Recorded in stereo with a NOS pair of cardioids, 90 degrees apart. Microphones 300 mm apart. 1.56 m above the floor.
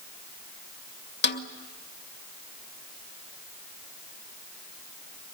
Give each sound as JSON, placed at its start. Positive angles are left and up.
{"t": 1.2, "sound": "a snare drum", "azimuth_deg": 35, "distance_m": 2.5}